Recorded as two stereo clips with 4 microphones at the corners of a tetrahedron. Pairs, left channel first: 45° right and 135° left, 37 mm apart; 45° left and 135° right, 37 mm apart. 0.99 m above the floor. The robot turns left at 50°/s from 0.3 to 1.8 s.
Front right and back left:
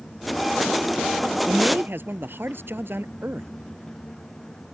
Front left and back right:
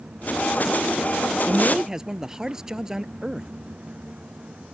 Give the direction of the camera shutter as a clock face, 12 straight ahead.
No camera shutter in this recording.